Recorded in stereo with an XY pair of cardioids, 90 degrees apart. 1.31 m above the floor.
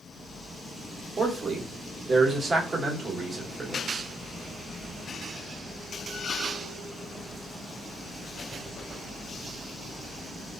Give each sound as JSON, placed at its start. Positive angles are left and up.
{"t": 1.2, "sound": "a man speaking", "azimuth_deg": -35, "distance_m": 1.4}